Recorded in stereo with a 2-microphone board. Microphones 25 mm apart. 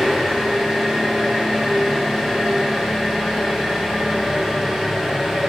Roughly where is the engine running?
Right.